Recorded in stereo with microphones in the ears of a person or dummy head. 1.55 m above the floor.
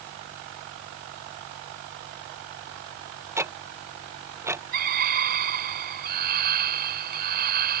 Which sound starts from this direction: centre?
Ticking, at 3.4 s.